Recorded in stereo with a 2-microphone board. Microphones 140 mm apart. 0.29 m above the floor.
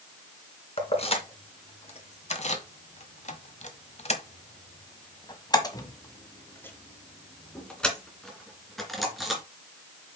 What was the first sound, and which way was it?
Keys jangling, 45° left (ahead or behind).